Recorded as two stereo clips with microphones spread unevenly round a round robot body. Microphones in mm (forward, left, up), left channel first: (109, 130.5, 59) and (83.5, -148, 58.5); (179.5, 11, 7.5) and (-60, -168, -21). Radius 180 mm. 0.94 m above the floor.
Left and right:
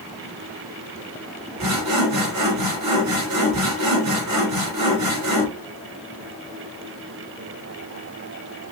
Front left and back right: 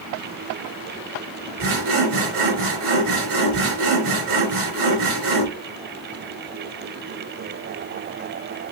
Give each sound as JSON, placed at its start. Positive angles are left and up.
{"t": 1.6, "sound": "sawing", "azimuth_deg": -100, "distance_m": 1.5}